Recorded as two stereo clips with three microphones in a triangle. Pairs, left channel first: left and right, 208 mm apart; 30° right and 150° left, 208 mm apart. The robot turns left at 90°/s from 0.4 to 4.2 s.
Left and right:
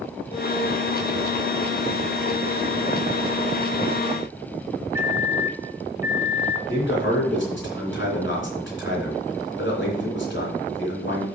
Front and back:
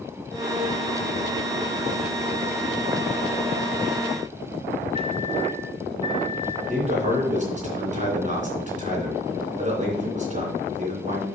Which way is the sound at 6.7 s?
100° left.